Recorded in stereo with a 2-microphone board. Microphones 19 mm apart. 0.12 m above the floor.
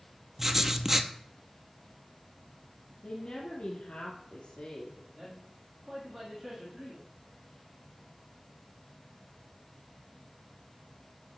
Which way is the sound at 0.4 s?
20° right (ahead or behind).